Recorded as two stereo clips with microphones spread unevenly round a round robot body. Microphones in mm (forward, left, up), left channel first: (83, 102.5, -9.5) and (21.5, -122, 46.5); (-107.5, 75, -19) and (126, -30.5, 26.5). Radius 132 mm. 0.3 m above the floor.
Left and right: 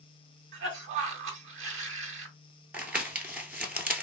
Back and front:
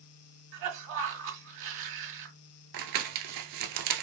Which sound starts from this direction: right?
A cough, at 0.5 s.